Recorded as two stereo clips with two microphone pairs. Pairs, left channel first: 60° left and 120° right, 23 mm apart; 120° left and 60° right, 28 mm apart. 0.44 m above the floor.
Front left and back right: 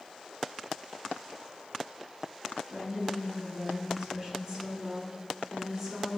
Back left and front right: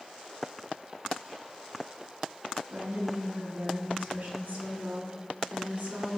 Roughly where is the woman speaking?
Ahead right.